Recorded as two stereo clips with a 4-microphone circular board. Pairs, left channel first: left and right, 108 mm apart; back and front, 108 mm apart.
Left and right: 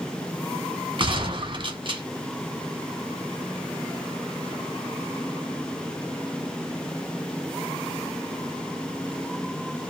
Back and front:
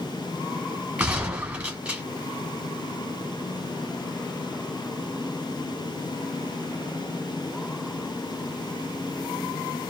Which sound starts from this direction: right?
A gunshot, at 1.0 s.